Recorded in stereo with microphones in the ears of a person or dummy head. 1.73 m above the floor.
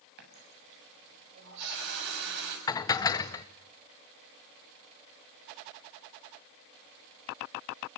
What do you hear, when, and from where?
0.2 s a running tap: 60° right (ahead or behind), 7.5 m
2.7 s dishes clattering: 20° left (ahead or behind), 0.7 m